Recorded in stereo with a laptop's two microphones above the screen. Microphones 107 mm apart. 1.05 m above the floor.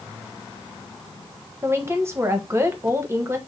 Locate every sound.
1.6 s a woman speaking: 25° right (ahead or behind), 1.0 m